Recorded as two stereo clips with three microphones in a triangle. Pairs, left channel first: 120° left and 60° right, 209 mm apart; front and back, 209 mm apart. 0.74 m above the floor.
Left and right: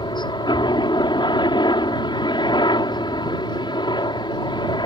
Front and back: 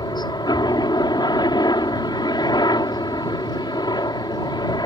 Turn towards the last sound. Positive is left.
turn(degrees=60)